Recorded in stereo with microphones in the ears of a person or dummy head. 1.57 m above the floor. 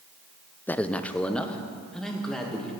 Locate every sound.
0.7 s a man speaking: 10° left (ahead or behind), 0.6 m; by 2.7 s 5° left (ahead or behind), 2.5 m